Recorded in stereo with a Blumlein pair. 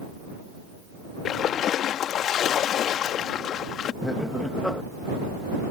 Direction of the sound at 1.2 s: 30° left.